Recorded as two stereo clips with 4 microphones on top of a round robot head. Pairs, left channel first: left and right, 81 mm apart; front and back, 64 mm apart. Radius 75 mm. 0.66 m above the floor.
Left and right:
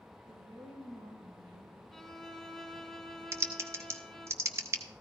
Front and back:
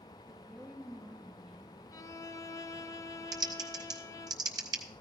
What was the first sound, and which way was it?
A woman speaking, 100° right.